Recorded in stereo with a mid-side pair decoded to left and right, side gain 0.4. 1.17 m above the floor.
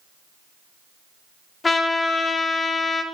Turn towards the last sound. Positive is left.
turn(degrees=35)